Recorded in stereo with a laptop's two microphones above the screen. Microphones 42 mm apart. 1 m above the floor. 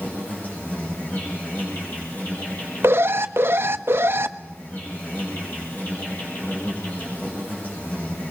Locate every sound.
0.0 s an insect: 45° left (ahead or behind), 8.5 m
2.8 s an alarm: 65° right (ahead or behind), 1.0 m